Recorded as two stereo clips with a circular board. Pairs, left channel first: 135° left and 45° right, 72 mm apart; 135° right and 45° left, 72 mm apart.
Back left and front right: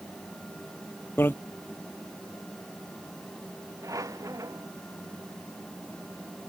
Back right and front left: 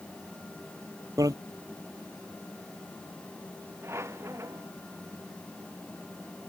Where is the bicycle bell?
75° left.